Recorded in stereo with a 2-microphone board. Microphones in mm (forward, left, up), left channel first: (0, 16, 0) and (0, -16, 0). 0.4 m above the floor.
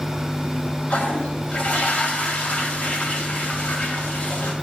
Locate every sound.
0.9 s a toilet flushing: 55° left (ahead or behind), 2 m